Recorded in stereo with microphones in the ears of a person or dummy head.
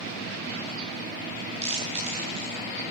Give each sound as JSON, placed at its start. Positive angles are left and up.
{"t": 1.6, "sound": "chewing", "side_deg": -45, "distance_m": 8.5}